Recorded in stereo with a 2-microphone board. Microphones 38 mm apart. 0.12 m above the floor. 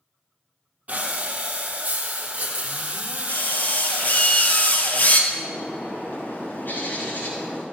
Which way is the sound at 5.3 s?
55° left (ahead or behind).